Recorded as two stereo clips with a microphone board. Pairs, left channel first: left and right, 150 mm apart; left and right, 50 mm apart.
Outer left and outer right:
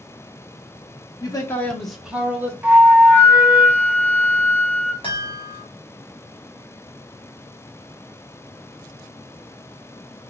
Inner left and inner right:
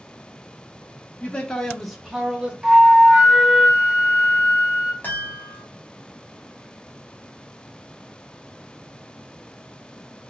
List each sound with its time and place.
1.2 s a man speaking: 30° left (ahead or behind), 0.6 m; by 2.5 s 15° right (ahead or behind), 1.0 m
2.6 s a flute: 10° right (ahead or behind), 0.7 m
5.0 s a chime: 35° left (ahead or behind), 1.2 m